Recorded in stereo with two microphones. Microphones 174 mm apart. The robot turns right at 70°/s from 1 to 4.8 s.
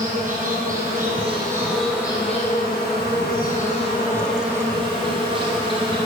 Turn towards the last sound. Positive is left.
turn(degrees=-150)